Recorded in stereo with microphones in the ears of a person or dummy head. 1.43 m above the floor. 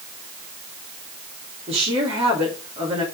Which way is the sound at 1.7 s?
35° right (ahead or behind).